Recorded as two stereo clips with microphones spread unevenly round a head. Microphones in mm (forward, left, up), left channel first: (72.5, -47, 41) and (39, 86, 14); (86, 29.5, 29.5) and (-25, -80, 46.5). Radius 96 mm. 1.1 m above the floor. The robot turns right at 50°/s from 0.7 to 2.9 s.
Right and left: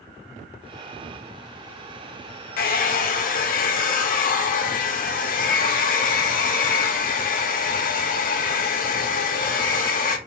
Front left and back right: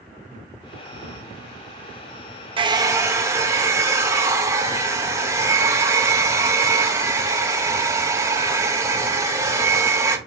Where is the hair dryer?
80° right, 0.5 m; by 10.2 s 60° right, 0.5 m.